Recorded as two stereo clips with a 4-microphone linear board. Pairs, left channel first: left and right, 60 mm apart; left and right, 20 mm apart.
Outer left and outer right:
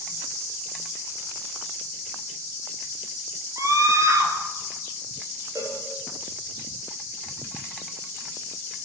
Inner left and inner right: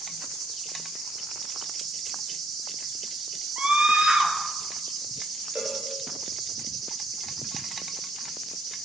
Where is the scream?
60° right (ahead or behind), 4 m.